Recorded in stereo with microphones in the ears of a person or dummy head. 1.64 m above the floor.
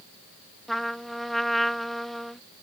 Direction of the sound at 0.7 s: 5° left (ahead or behind).